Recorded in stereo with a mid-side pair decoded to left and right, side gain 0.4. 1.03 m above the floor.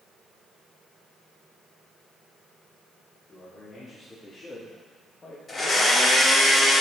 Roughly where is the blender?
Ahead left.